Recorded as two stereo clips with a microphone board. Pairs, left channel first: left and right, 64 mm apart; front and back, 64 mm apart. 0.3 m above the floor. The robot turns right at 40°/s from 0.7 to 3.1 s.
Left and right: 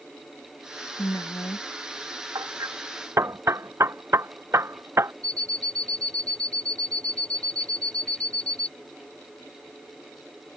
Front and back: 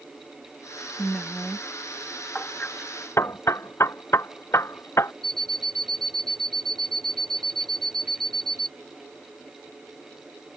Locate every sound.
1.0 s a woman speaking: 80° left; by 1.7 s 105° left
2.4 s hammering: 75° right; by 5.1 s 45° right
5.2 s an alarm clock: 80° right